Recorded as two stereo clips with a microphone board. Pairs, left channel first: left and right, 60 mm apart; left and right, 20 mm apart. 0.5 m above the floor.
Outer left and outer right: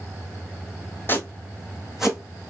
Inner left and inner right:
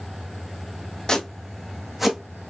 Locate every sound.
1.1 s footsteps: 35° left (ahead or behind), 1.1 m; by 2.5 s 20° right (ahead or behind), 1.6 m